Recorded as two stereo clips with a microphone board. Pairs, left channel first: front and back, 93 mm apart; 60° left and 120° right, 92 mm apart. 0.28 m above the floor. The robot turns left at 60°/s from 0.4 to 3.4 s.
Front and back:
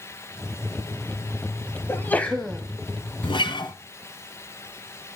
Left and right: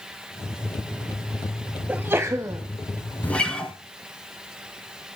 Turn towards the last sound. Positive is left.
turn(degrees=-20)